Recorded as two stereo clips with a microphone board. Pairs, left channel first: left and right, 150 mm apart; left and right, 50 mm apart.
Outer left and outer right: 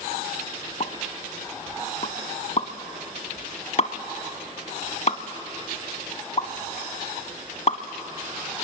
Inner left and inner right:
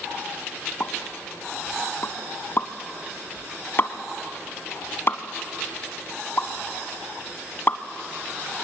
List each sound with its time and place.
0.8 s a pop: 50° left (ahead or behind), 1.0 m